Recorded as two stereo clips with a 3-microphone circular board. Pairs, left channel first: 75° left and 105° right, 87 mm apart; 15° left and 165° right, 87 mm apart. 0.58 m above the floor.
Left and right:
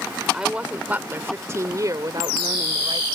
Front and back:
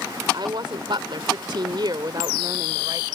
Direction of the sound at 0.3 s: 175° left.